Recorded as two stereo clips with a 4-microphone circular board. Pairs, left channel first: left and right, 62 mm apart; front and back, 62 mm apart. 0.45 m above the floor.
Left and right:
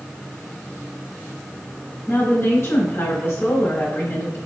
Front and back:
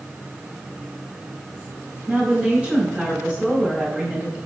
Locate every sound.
2.1 s a woman speaking: 110° left, 1.9 m